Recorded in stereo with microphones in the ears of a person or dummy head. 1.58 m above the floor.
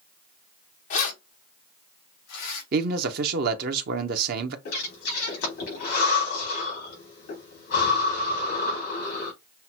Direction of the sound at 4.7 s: 60° left (ahead or behind).